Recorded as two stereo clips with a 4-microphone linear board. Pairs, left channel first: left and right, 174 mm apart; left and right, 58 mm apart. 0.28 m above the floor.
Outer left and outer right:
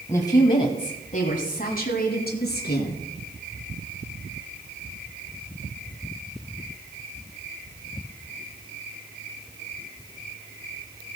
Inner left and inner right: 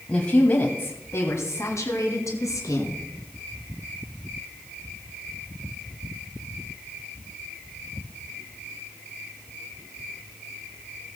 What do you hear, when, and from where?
0.1 s a woman speaking: 15° left (ahead or behind), 1.4 m; by 3.0 s 65° left (ahead or behind), 2.5 m